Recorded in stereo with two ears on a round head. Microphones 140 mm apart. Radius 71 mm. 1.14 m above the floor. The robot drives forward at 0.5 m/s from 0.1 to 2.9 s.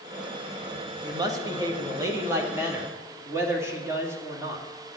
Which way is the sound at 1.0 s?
25° right (ahead or behind).